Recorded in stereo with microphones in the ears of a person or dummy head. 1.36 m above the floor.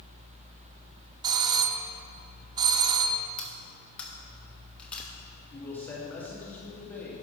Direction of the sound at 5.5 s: 10° left (ahead or behind).